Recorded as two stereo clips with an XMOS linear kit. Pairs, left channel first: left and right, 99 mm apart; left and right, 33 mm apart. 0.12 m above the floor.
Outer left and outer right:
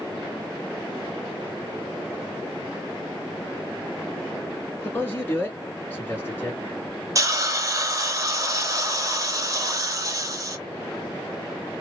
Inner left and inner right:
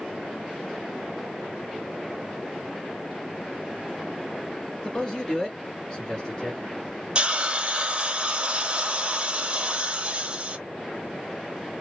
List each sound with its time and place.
4.8 s a man speaking: 20° left (ahead or behind), 1.6 m
7.2 s a hiss: 35° right (ahead or behind), 0.7 m